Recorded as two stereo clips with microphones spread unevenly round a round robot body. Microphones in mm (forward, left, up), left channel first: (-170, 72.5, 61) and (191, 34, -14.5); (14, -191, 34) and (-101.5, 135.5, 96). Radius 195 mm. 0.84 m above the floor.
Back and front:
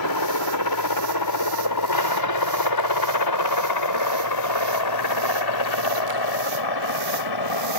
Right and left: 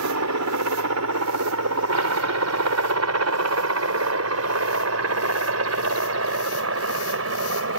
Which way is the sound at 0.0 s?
150° left.